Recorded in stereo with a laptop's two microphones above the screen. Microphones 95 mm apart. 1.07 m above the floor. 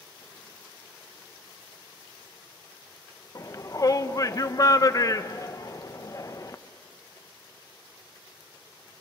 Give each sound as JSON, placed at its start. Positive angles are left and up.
{"t": 3.4, "sound": "a shout", "side_deg": 40, "distance_m": 0.9}